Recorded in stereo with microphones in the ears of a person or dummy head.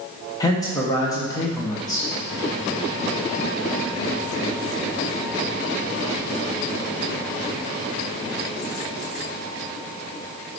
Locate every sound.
0.4 s a man speaking: 15° left (ahead or behind), 1.1 m